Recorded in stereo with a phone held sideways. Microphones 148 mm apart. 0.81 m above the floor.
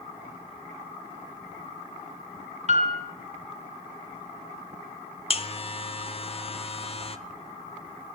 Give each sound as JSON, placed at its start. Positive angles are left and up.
{"t": 2.7, "sound": "a piano", "side_deg": -50, "distance_m": 1.2}
{"t": 5.3, "sound": "a buzzer", "side_deg": 40, "distance_m": 0.5}